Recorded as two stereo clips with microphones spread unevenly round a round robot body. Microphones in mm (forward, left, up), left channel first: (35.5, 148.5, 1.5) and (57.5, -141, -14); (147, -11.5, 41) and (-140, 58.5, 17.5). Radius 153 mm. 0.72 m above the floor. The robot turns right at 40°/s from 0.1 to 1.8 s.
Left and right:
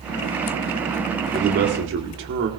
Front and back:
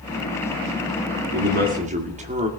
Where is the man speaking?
150° right, 2 m; by 2.5 s 130° right, 2 m.